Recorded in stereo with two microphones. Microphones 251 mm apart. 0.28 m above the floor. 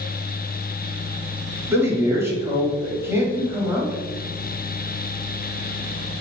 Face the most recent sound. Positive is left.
turn(degrees=-10)  # may be behind; listen again after turning